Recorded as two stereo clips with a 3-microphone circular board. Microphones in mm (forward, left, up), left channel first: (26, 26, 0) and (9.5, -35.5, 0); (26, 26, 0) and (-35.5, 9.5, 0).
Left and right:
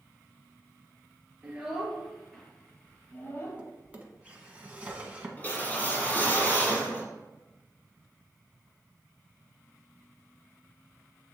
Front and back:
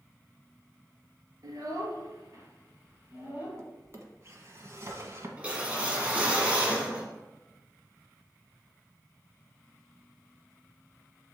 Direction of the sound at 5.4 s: 130° left.